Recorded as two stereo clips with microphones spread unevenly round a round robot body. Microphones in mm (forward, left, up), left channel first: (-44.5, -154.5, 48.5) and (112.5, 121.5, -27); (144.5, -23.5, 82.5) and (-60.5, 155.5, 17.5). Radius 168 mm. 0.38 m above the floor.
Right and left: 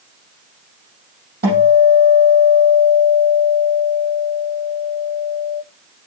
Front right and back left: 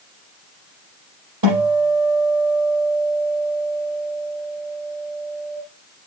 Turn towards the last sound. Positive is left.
turn(degrees=125)